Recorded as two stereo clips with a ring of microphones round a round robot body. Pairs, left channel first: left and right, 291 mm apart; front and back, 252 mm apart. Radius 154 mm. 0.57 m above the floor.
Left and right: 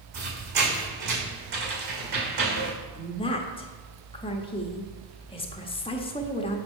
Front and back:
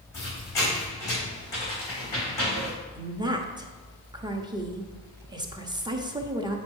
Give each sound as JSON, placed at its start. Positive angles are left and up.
{"t": 0.1, "sound": "a squeak", "azimuth_deg": -80, "distance_m": 3.5}
{"t": 3.0, "sound": "a woman speaking", "azimuth_deg": 130, "distance_m": 1.0}